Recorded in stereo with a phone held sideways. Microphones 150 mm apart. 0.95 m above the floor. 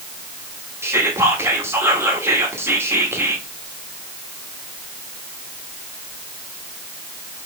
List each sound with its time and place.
0.8 s whispering: 15° right (ahead or behind), 1.4 m